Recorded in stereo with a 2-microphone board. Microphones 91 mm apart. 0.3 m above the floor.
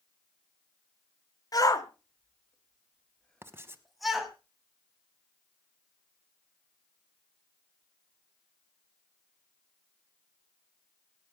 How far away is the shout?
About 1.4 m.